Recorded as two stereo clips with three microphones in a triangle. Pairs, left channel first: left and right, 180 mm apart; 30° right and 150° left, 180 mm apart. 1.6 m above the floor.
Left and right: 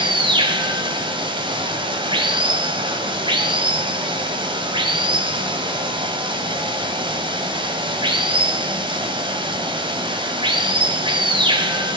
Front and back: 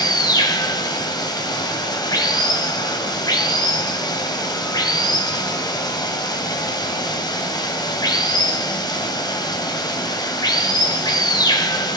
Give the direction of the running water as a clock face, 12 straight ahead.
2 o'clock.